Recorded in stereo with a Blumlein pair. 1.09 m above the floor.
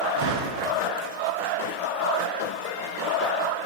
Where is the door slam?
40° right, 9 m.